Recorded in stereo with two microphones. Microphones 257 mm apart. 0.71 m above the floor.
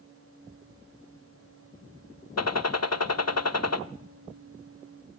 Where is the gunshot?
70° left (ahead or behind), 0.7 m.